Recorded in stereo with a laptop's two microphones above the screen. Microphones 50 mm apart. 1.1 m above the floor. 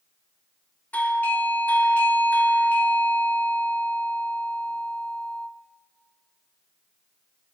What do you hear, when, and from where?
0.9 s a doorbell: 35° left (ahead or behind), 0.9 m